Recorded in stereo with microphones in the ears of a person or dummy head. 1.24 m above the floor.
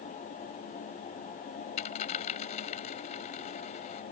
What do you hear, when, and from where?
1.8 s a dropped coin: 40° left (ahead or behind)